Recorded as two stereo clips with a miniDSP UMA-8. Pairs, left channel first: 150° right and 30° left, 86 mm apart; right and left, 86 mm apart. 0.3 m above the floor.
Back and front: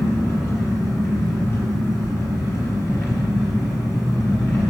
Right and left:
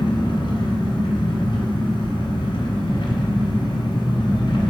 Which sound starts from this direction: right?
An engine running, at 0.0 s.